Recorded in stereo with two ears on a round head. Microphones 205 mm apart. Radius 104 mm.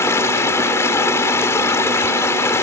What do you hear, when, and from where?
0.0 s running water: 10° left (ahead or behind)